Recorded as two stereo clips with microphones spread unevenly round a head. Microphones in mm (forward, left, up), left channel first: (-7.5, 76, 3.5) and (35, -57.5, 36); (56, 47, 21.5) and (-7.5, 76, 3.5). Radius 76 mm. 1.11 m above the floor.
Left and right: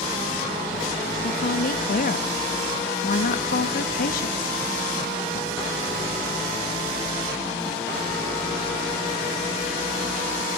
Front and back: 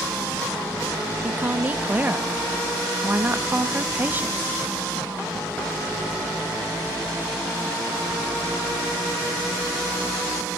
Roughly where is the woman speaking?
Left.